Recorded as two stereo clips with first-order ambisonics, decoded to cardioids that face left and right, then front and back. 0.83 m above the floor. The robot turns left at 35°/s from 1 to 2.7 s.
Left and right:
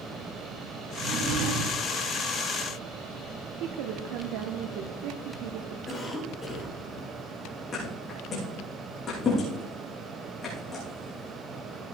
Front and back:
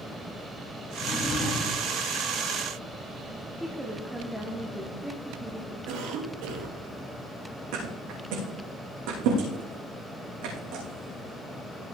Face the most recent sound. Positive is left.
turn(degrees=155)